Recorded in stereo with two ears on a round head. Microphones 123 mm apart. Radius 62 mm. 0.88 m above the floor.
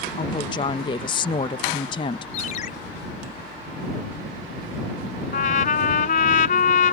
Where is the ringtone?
60° left (ahead or behind).